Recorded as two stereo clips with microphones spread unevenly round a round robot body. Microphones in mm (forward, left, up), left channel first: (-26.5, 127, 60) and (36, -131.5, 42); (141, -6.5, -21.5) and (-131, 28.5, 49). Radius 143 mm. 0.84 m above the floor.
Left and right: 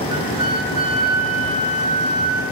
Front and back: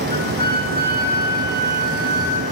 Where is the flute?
5° right, 4.5 m.